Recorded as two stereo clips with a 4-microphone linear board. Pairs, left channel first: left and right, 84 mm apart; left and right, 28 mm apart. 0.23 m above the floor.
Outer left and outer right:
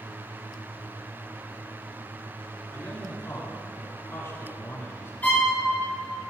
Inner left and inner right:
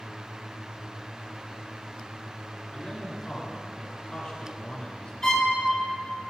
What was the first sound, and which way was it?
A man speaking, 35° left (ahead or behind).